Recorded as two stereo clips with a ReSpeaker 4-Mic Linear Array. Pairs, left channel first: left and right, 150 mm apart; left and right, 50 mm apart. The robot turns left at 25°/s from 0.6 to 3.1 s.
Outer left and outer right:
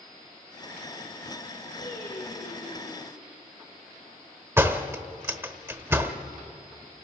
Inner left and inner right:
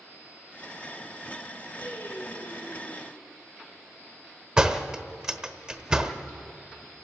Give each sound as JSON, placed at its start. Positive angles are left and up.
{"t": 1.8, "sound": "singing", "azimuth_deg": 85, "distance_m": 8.0}
{"t": 4.6, "sound": "a door slam", "side_deg": -15, "distance_m": 1.1}